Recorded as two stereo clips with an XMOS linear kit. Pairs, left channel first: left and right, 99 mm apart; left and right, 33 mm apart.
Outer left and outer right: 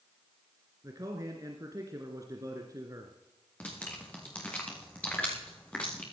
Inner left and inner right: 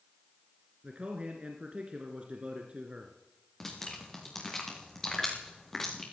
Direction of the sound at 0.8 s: 35° right (ahead or behind).